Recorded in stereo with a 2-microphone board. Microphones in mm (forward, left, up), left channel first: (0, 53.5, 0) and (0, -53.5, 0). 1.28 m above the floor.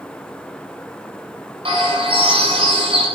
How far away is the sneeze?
No sneeze in this recording.